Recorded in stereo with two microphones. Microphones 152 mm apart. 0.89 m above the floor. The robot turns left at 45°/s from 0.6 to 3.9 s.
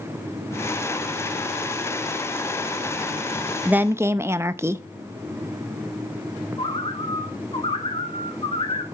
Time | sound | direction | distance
3.6 | a woman speaking | 10° right (ahead or behind) | 0.6 m
6.6 | a bird | 35° left (ahead or behind) | 1.3 m